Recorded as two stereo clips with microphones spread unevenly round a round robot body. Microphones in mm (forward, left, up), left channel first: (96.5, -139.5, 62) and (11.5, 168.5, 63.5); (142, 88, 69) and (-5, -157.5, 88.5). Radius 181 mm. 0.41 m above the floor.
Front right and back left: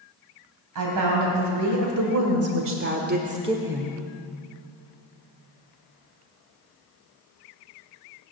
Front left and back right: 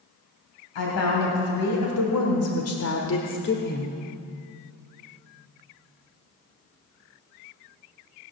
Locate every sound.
0.8 s a woman speaking: 85° left, 3 m; by 4.0 s 10° left, 1.3 m